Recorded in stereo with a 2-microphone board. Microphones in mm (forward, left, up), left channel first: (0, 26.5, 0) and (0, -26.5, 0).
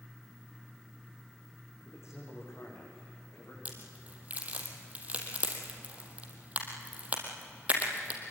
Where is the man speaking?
60° left (ahead or behind), 9.5 m; by 3.5 s 65° left (ahead or behind), 10.5 m.